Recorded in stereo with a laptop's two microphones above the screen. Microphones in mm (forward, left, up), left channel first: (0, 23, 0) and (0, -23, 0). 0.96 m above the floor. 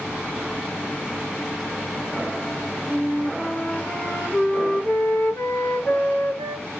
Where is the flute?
55° left (ahead or behind), 1.0 m.